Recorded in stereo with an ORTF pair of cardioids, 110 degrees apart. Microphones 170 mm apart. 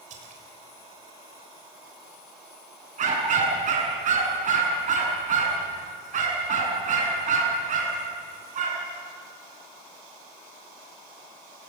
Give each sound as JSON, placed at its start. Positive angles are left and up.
{"t": 0.1, "sound": "a splash", "azimuth_deg": -50, "distance_m": 6.0}
{"t": 3.0, "sound": "a dog barking", "azimuth_deg": -50, "distance_m": 7.5}